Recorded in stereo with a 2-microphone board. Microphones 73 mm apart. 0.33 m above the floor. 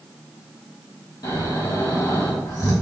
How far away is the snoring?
About 3 m.